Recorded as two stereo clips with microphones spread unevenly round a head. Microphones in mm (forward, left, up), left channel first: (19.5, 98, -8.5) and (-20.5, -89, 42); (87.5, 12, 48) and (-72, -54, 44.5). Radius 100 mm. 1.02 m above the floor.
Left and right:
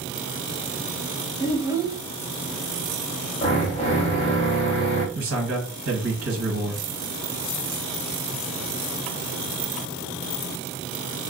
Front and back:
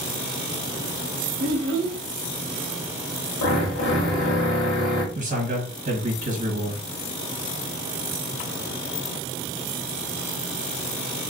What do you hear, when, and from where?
1.4 s a child speaking: 170° right, 0.6 m
3.4 s a drill: 20° left, 1.4 m
5.2 s a man speaking: 125° right, 1.4 m